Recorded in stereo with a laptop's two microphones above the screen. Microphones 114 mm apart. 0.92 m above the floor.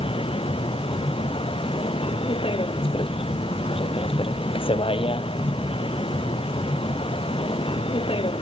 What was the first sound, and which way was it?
A vehicle, 50° left (ahead or behind).